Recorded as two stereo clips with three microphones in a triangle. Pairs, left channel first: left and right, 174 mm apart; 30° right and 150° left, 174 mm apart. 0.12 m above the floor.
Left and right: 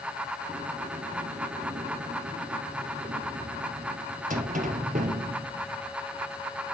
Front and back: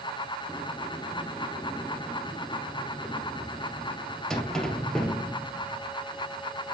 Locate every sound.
0.5 s a sliding door: 115° right, 1.4 m